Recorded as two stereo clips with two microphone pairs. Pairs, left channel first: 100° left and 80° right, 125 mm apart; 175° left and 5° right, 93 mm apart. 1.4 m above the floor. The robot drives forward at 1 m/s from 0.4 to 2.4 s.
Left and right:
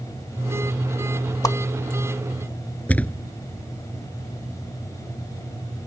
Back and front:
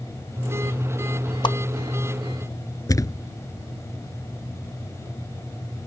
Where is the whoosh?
155° left; by 1.6 s 160° left.